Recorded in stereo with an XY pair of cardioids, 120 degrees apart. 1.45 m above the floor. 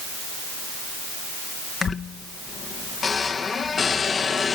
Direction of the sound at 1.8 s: 35° left.